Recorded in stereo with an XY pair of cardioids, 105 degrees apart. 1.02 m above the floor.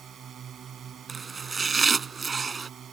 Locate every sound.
0.0 s a drone: 50° right
1.1 s chopping: 25° right